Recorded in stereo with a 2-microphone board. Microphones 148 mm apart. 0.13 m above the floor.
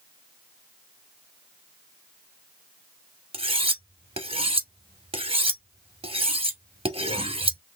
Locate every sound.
3.3 s cutlery clinking: 40° right (ahead or behind), 1.2 m